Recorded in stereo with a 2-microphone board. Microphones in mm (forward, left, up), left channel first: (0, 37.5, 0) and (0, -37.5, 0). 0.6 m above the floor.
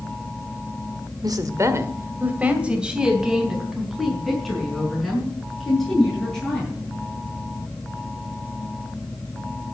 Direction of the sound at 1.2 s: 60° right (ahead or behind).